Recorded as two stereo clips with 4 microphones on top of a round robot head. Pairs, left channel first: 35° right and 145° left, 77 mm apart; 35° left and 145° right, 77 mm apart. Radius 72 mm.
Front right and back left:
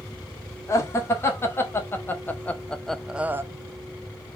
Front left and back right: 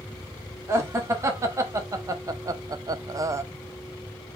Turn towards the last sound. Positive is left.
turn(degrees=-175)